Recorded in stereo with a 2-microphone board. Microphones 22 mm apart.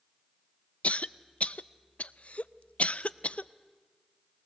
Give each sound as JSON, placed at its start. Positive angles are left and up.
{"t": 0.8, "sound": "a cough", "side_deg": 70, "distance_m": 0.6}